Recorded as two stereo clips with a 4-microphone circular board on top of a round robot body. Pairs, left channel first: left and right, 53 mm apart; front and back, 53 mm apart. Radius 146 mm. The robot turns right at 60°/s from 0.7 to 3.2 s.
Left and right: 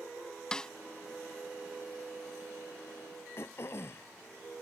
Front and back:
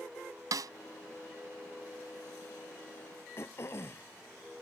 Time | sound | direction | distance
0.5 | a snare drum | 170° left | ?
3.4 | throat clearing | 45° left | ?